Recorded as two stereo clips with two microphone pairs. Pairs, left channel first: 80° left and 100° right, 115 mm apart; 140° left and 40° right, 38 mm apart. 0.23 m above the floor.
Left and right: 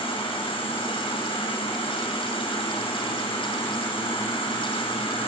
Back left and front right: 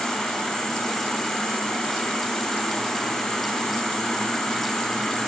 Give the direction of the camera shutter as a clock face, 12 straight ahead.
I don't hear a camera shutter.